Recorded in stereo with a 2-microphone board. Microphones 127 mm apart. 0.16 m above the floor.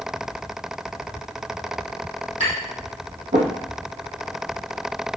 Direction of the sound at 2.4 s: 70° right (ahead or behind).